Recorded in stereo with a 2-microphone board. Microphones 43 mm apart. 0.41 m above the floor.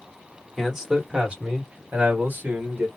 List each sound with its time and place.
0.6 s a man speaking: 5° right (ahead or behind), 1.4 m; by 2.9 s 55° right (ahead or behind), 2 m